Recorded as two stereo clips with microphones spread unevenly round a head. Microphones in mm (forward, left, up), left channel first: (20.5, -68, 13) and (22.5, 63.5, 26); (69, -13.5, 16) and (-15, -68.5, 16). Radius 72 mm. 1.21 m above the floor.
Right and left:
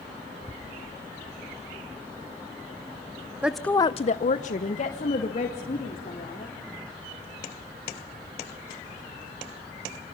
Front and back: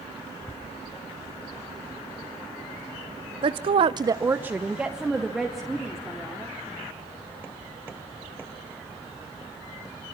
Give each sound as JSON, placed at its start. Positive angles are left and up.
{"t": 3.4, "sound": "a woman speaking", "azimuth_deg": 170, "distance_m": 0.9}